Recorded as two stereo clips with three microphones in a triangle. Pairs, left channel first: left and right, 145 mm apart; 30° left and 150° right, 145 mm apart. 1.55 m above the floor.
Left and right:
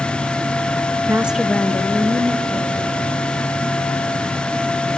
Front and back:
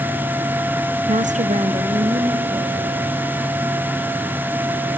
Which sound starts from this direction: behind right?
A woman speaking, at 1.1 s.